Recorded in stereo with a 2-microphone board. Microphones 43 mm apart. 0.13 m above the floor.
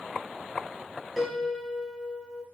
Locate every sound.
1.2 s a piano: centre (ahead or behind), 1.2 m